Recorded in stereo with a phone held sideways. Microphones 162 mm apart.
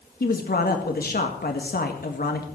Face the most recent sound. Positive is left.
turn(degrees=70)  # may be behind; listen again after turning